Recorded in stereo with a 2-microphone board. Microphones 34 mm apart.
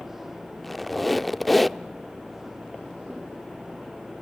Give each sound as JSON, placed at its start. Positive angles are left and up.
{"t": 0.6, "sound": "a squeak", "side_deg": 5, "distance_m": 0.5}